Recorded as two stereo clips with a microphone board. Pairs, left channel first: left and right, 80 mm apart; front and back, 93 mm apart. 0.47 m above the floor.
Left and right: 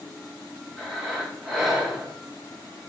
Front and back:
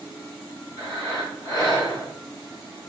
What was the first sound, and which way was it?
Breathing, 5° right.